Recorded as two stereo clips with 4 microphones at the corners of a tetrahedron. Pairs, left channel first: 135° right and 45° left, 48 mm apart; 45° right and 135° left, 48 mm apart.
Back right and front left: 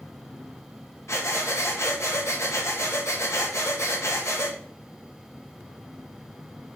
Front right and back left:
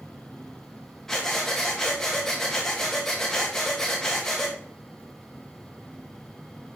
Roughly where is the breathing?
Behind right.